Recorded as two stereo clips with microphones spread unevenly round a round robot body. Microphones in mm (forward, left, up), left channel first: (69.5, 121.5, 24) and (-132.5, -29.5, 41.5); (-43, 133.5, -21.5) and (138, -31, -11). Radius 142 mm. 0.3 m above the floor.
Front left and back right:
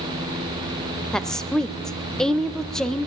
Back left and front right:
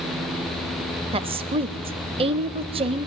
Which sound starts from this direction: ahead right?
A woman speaking, at 1.1 s.